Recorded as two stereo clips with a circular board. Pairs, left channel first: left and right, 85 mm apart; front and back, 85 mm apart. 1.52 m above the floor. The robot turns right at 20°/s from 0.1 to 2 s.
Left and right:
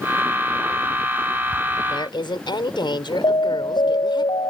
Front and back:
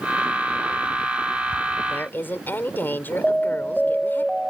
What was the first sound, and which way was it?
A woman speaking, 65° left.